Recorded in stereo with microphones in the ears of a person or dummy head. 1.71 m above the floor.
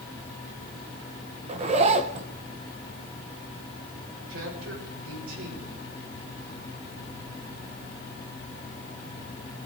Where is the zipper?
35° right (ahead or behind), 1.3 m.